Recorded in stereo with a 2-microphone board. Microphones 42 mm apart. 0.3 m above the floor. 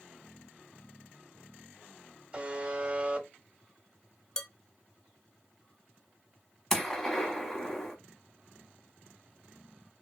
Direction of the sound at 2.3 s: 25° right (ahead or behind).